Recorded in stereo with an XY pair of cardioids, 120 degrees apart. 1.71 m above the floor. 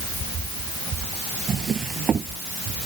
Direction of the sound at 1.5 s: 40° right.